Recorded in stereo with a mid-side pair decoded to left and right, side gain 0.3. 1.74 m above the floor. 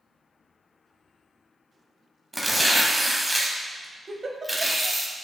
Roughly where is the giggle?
Ahead right.